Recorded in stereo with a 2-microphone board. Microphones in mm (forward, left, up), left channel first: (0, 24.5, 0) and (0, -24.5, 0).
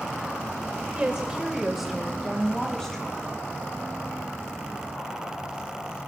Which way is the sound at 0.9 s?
25° right (ahead or behind).